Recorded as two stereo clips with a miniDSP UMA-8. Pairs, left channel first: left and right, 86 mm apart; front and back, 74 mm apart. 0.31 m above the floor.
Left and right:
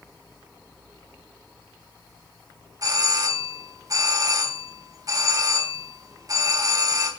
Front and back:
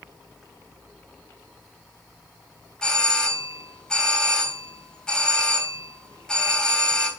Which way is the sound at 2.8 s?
75° right.